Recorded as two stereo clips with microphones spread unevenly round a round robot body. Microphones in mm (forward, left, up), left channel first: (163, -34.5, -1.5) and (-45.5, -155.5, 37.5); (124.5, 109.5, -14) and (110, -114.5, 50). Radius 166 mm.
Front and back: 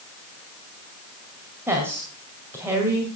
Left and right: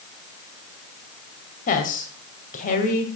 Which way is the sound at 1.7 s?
125° left.